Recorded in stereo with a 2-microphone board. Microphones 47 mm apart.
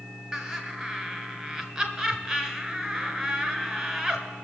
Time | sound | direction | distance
0.3 | laughter | 20° right (ahead or behind) | 1.8 m